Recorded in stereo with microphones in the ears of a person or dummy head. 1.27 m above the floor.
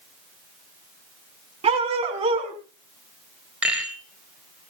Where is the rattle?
10° right (ahead or behind), 5 m.